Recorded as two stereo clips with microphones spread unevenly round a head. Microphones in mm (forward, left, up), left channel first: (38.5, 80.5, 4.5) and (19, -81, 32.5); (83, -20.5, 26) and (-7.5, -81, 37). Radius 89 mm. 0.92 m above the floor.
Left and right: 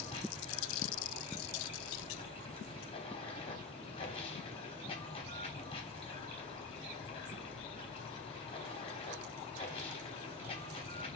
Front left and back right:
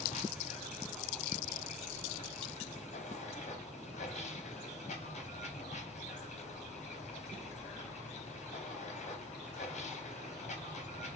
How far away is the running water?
About 3 m.